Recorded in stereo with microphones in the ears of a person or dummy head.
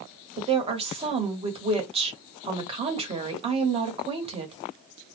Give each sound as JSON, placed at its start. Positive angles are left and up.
{"t": 0.4, "sound": "a woman speaking", "side_deg": -30, "distance_m": 1.0}